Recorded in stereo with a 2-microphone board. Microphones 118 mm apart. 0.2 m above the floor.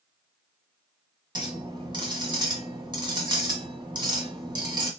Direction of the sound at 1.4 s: 40° right (ahead or behind).